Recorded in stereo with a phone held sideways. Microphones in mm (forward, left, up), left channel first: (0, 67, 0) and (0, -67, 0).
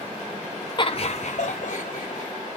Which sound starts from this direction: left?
Laughter, at 0.8 s.